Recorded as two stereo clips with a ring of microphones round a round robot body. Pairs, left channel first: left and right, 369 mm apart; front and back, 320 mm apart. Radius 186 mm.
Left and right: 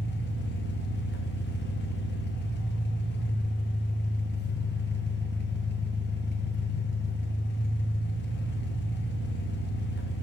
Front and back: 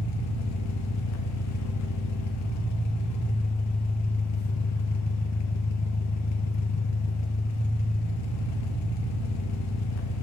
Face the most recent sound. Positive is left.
turn(degrees=30)